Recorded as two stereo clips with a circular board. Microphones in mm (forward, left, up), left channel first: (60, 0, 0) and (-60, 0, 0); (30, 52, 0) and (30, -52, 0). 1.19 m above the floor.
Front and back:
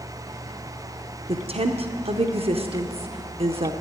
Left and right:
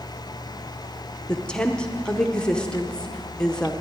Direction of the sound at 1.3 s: 170° left.